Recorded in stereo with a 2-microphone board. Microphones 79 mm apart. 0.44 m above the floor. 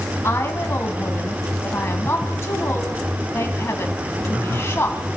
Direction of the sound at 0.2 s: 35° left (ahead or behind).